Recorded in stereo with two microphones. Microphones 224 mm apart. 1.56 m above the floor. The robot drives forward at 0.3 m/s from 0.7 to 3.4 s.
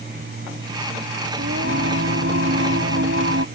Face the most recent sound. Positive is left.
turn(degrees=-65)  # may be behind; listen again after turning